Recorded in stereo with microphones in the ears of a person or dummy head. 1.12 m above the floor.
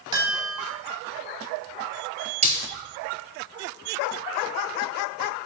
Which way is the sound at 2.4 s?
35° right (ahead or behind).